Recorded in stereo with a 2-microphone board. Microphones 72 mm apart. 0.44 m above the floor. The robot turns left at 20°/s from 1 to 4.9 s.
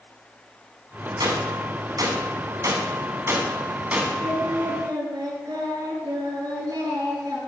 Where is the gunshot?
75° right (ahead or behind), 1.9 m; by 4.1 s 20° right (ahead or behind), 1.9 m.